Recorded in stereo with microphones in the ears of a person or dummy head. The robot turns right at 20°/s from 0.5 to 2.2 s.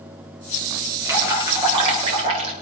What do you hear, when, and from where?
1.1 s dripping: 10° right (ahead or behind), 4 m; by 2.5 s 35° right (ahead or behind), 4 m